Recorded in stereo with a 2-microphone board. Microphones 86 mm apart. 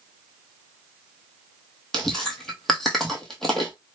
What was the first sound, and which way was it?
Chewing, 5° left (ahead or behind).